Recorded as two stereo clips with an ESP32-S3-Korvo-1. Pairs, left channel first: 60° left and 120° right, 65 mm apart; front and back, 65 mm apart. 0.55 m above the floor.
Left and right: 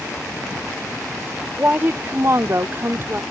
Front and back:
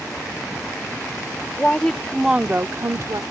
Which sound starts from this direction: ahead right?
A woman speaking, at 1.6 s.